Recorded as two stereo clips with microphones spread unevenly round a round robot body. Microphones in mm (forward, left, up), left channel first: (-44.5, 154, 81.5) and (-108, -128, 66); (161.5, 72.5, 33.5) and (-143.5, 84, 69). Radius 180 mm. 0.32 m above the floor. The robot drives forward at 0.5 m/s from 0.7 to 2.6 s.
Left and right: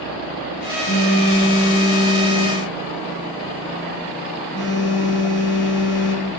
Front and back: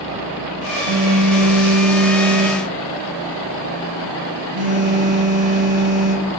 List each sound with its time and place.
0.9 s a phone buzzing: 150° left, 6.5 m; by 6.3 s 155° left, 7 m